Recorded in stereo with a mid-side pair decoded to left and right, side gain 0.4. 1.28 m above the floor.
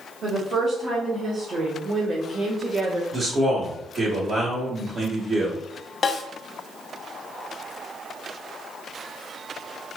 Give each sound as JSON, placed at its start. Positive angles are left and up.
{"t": 0.2, "sound": "a woman speaking", "azimuth_deg": -60, "distance_m": 2.0}
{"t": 3.1, "sound": "a man speaking", "azimuth_deg": -55, "distance_m": 1.7}
{"t": 6.0, "sound": "a snare drum", "azimuth_deg": 45, "distance_m": 0.9}